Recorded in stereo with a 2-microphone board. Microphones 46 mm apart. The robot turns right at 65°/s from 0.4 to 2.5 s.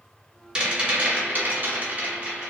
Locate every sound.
0.6 s a rattle: 160° right, 1.5 m; by 2.5 s 30° right, 1.5 m